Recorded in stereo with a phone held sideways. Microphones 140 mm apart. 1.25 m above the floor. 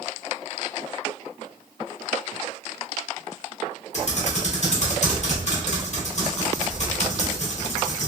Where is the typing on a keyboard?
55° left (ahead or behind), 0.9 m.